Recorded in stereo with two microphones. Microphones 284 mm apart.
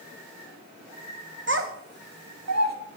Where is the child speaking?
45° right (ahead or behind), 0.9 m; by 2.8 s 65° right (ahead or behind), 1.0 m.